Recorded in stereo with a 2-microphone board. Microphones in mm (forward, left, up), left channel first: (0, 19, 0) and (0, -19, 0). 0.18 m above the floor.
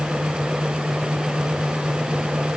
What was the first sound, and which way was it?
Only background noise.